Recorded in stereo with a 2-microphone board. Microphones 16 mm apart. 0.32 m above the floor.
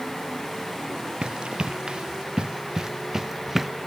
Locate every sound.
1.2 s running footsteps: 75° right (ahead or behind); by 3.7 s 15° right (ahead or behind)